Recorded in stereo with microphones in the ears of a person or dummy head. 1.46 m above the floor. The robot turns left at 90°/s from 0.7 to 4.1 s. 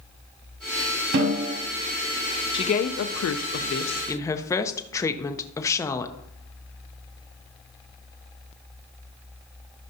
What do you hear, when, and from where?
1.1 s a snare drum: 100° right, 1.5 m; by 1.5 s 135° right, 1.5 m
2.5 s a woman speaking: 25° left (ahead or behind), 0.5 m; by 6.1 s 15° left (ahead or behind), 0.5 m